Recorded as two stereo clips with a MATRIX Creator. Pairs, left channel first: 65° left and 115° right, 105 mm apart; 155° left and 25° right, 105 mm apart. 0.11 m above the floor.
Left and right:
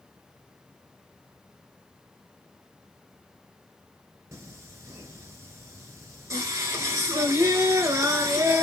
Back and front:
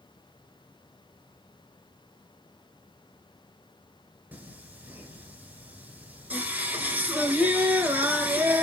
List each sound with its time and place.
4.3 s singing: 85° right, 1.1 m